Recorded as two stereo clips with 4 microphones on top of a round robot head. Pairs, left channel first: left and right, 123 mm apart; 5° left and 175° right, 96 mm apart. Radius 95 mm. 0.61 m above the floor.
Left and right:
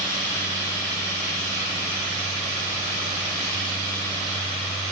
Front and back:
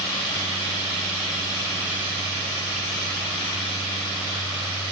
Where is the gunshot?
No gunshot in this recording.